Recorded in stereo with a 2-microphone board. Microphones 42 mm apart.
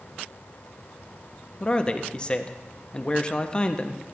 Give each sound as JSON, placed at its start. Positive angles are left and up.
{"t": 1.6, "sound": "a man speaking", "side_deg": 25, "distance_m": 0.6}